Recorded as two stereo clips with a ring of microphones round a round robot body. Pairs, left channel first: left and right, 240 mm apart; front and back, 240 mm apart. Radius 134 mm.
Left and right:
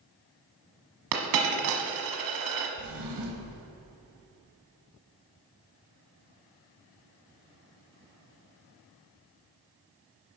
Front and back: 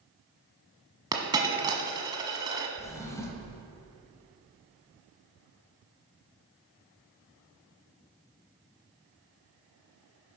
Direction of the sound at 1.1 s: 105° right.